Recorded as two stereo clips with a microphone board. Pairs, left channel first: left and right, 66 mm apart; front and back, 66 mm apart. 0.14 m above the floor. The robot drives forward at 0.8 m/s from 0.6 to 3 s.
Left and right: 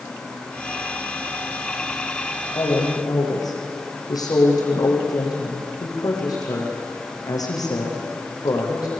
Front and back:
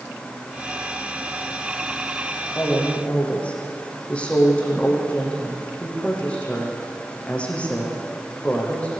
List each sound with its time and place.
2.5 s a woman speaking: 70° left, 7.5 m